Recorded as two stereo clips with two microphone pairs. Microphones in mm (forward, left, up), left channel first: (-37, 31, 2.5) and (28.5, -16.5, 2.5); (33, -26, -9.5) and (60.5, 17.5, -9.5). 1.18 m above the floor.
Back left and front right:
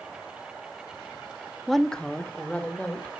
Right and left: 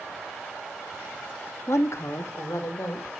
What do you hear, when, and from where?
1.7 s a woman speaking: 125° right, 0.9 m; by 3.1 s 145° right, 2.5 m